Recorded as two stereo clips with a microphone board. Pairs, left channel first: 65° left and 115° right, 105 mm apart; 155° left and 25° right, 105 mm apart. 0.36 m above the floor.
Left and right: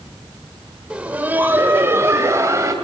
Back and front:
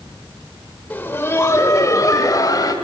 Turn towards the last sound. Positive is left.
turn(degrees=-165)